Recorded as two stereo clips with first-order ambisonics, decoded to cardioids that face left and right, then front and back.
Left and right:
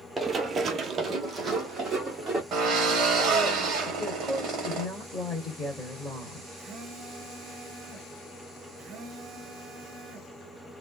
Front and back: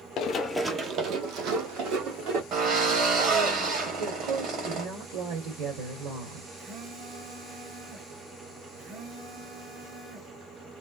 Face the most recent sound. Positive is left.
turn(degrees=-140)